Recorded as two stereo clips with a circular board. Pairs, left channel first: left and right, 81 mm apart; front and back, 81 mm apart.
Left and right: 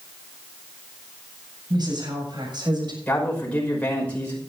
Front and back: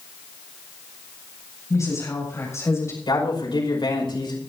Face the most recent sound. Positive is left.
turn(degrees=15)